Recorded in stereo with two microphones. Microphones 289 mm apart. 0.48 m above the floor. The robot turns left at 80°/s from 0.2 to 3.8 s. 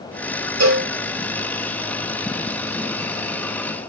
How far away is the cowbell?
About 0.6 m.